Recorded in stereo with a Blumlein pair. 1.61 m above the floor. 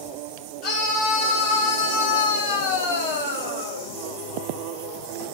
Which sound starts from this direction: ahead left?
A scream, at 0.6 s.